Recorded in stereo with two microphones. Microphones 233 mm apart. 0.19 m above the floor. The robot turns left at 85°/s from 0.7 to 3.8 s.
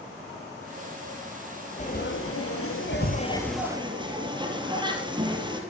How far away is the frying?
About 5 m.